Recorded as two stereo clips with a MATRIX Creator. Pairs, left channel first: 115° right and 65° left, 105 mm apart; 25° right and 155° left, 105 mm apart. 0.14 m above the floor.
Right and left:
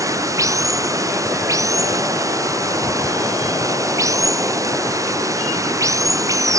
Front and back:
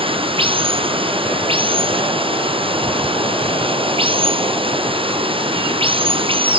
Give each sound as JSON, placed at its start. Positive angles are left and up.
{"t": 0.0, "sound": "running water", "azimuth_deg": 125}